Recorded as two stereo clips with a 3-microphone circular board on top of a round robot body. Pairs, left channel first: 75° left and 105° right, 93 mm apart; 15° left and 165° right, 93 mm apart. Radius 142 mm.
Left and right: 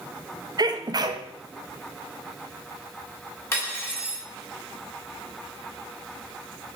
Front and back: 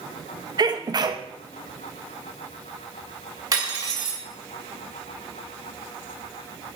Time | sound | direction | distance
0.6 | a sneeze | 135° right | 0.9 m
3.5 | cutlery clinking | 140° left | 2.0 m